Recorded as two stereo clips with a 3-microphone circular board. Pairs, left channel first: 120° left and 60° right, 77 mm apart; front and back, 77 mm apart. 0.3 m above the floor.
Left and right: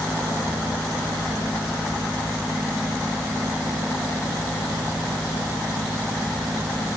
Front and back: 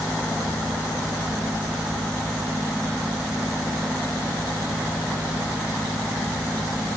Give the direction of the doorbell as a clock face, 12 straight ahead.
I don't hear a doorbell.